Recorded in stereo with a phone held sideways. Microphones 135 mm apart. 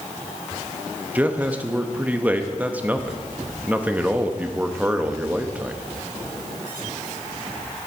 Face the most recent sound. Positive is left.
turn(degrees=-10)  # may be behind; listen again after turning